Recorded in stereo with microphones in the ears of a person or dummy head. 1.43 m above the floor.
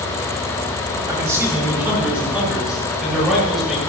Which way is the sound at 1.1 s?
20° right (ahead or behind).